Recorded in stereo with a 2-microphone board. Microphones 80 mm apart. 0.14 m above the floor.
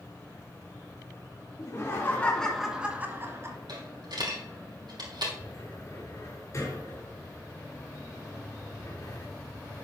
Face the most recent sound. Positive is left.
turn(degrees=45)  # may be behind; listen again after turning